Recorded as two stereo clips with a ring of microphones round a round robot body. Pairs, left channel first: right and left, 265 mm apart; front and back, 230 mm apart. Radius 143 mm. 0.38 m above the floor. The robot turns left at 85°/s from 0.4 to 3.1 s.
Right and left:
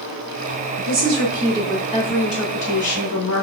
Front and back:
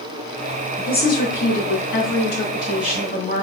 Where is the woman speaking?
70° left, 4 m; by 3.4 s 120° right, 4 m.